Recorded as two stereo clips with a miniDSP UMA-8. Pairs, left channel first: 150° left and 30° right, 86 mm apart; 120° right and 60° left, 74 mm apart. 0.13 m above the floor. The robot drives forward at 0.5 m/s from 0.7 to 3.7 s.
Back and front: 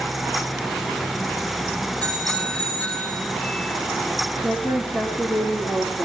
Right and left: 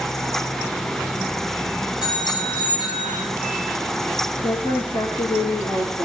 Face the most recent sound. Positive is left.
turn(degrees=-135)